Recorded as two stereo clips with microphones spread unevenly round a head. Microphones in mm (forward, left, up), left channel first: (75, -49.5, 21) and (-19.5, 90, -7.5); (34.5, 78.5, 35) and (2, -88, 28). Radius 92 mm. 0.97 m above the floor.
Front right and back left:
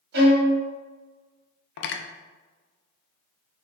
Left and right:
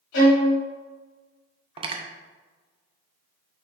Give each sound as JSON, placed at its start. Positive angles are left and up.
{"t": 0.1, "sound": "a violin", "azimuth_deg": 100, "distance_m": 1.4}
{"t": 1.8, "sound": "cutlery clinking", "azimuth_deg": -40, "distance_m": 0.5}